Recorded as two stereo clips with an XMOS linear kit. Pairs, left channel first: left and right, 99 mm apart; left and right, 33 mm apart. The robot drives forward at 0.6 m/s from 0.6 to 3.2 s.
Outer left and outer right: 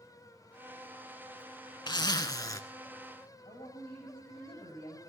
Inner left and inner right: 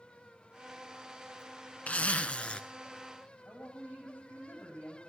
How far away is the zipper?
About 0.8 m.